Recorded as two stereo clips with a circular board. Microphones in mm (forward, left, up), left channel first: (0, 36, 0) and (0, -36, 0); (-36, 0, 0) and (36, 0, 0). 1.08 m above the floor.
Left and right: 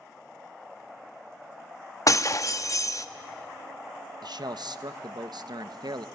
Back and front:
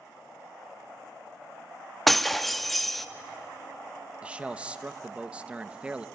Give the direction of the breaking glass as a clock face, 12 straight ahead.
9 o'clock.